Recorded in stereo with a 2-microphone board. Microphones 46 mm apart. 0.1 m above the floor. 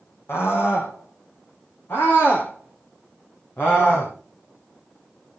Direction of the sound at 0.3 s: 55° left (ahead or behind).